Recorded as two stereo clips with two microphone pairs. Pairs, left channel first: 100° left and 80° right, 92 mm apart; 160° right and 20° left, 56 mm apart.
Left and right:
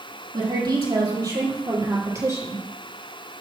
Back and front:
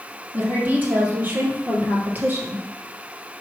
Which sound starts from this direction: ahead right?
A woman speaking, at 0.3 s.